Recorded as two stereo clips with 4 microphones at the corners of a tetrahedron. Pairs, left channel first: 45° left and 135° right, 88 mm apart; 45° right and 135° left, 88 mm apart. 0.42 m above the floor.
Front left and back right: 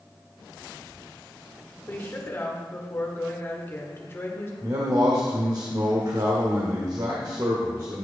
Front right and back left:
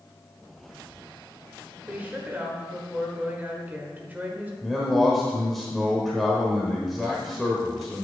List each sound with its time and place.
1.9 s a woman speaking: 80° left, 1.3 m
4.6 s a man speaking: 135° right, 1.0 m